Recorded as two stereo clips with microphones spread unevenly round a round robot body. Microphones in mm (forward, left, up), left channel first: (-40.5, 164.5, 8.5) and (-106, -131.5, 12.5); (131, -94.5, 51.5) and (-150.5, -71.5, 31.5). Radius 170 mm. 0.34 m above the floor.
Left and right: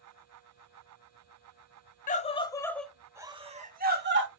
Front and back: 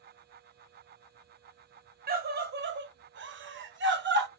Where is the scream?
130° left, 1.2 m; by 4.3 s 145° right, 1.4 m.